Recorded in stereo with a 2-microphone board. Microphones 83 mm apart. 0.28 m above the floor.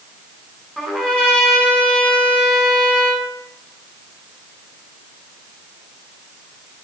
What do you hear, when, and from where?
0.8 s a trumpet: 10° left (ahead or behind), 1.8 m